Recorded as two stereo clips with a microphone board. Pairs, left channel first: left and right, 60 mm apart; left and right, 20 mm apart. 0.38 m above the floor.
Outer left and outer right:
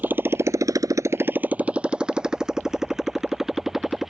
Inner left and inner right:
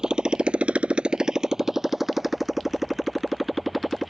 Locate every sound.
0.0 s a motorcycle: 30° right (ahead or behind); by 4.1 s 5° right (ahead or behind)